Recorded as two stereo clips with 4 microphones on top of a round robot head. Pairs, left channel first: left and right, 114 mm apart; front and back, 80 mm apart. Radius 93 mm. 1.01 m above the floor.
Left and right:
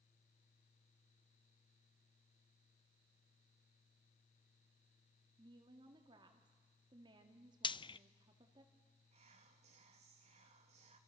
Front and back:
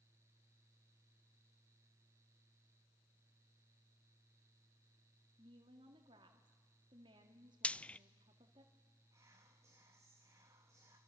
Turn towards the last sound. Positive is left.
turn(degrees=-120)